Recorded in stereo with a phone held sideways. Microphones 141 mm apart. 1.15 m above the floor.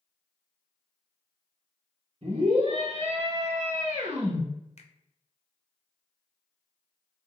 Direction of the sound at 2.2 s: 50° right (ahead or behind).